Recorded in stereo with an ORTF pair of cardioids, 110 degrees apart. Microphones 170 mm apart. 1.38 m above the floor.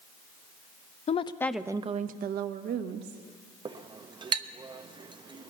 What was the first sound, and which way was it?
A woman speaking, 40° left.